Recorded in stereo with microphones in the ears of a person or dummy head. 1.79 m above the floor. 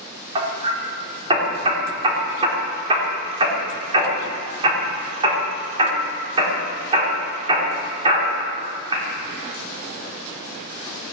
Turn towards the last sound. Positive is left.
turn(degrees=-25)  # may be behind; listen again after turning